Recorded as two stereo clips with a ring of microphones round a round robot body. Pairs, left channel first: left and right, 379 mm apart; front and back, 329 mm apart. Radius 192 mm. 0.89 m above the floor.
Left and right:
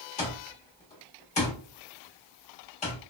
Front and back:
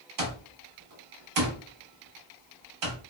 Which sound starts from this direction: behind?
An alarm clock, at 0.2 s.